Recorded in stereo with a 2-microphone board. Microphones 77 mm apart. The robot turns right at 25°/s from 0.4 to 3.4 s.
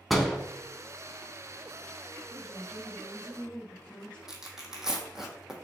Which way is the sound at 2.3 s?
20° left (ahead or behind).